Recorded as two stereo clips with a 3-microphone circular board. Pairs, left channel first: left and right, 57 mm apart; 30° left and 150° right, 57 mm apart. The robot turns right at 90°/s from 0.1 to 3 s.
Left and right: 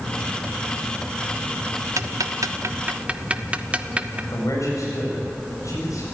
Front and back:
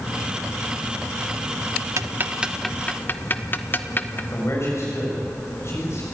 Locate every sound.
2.0 s ticking: 120° right, 1.0 m; by 4.2 s 25° right, 1.0 m
4.3 s a man speaking: 70° left, 7 m